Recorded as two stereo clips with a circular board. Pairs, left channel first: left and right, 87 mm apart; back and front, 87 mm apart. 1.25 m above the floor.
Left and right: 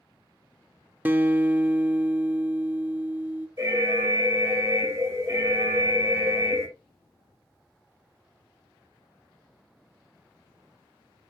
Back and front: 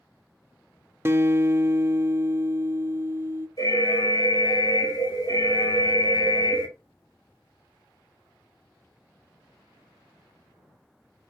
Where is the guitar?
35° right, 0.7 m.